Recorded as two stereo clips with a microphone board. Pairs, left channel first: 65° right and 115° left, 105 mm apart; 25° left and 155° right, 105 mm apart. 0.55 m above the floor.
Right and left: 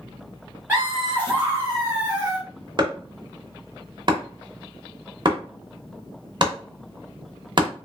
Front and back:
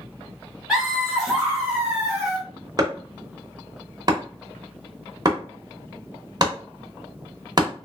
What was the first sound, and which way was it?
Laughter, 135° left.